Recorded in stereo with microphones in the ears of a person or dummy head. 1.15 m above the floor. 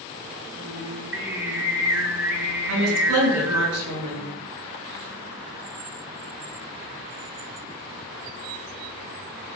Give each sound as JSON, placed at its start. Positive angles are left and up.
{"t": 0.6, "sound": "singing", "side_deg": -10, "distance_m": 2.5}
{"t": 2.7, "sound": "a woman speaking", "side_deg": -85, "distance_m": 6.5}